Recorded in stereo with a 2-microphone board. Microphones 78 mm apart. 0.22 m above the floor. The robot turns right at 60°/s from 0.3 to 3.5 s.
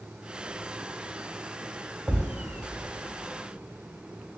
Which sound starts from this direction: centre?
A thud, at 2.1 s.